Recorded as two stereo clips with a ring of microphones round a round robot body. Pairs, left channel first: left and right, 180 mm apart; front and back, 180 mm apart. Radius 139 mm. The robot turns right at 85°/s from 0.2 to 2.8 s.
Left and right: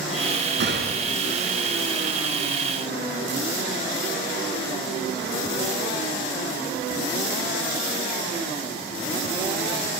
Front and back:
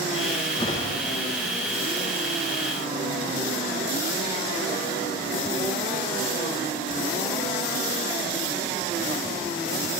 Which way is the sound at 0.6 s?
70° right.